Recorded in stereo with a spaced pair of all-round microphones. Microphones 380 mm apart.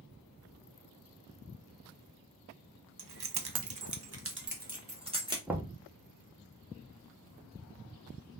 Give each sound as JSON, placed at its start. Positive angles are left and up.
{"t": 3.0, "sound": "keys jangling", "side_deg": -75, "distance_m": 0.6}
{"t": 5.5, "sound": "knocking", "side_deg": -5, "distance_m": 0.5}